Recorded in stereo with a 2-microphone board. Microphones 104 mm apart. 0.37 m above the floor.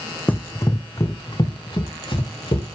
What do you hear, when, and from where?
0.3 s running footsteps: 15° left (ahead or behind), 0.7 m; by 2.6 s 50° left (ahead or behind), 2 m